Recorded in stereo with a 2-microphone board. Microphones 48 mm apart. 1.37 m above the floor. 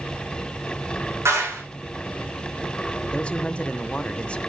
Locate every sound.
1.2 s a clap: 80° right, 6.5 m
3.1 s a man speaking: 20° left (ahead or behind), 0.9 m